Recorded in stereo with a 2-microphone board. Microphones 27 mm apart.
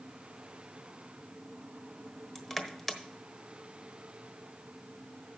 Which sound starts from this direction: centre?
Crushing, at 2.4 s.